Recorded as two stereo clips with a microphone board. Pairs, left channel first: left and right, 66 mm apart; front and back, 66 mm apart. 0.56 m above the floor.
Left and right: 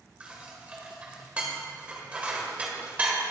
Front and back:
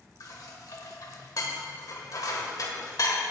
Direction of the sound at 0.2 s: 20° right.